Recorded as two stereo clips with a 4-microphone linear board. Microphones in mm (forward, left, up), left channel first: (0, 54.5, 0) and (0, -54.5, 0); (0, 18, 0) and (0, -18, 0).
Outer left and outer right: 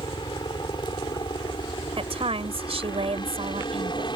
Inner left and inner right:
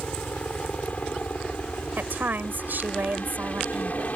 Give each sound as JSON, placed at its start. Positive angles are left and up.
{"t": 0.0, "sound": "a helicopter", "side_deg": 45}
{"t": 2.0, "sound": "a woman speaking", "side_deg": -65}